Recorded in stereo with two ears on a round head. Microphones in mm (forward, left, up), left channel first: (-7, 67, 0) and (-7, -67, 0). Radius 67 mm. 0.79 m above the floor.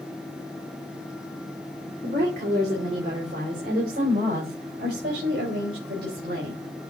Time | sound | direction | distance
2.0 | a woman speaking | 65° right (ahead or behind) | 2.5 m